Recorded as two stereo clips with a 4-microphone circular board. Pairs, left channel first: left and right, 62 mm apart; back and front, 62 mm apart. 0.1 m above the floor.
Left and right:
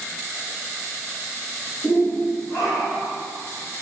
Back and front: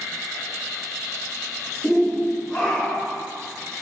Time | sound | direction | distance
1.8 | a shout | 95° left | 1.7 m